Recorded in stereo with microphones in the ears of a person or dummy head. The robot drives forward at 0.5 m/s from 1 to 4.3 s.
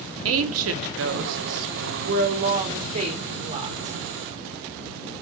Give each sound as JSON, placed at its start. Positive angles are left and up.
{"t": 0.2, "sound": "a woman speaking", "side_deg": -70, "distance_m": 0.7}